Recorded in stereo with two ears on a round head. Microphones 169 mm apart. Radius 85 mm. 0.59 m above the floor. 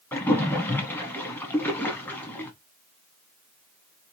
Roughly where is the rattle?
I don't hear a rattle.